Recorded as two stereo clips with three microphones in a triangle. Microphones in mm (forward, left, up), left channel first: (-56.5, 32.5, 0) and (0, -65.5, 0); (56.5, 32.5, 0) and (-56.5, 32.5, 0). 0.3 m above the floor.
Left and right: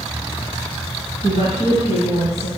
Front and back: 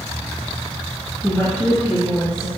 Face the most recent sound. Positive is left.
turn(degrees=-70)